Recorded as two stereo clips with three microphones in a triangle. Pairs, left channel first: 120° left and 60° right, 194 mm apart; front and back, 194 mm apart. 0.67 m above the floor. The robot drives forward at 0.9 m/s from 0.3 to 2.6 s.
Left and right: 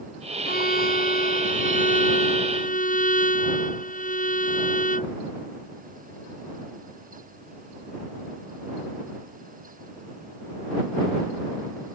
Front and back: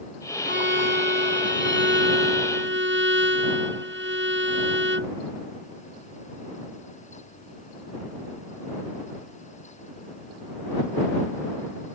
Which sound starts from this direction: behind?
A violin, at 0.5 s.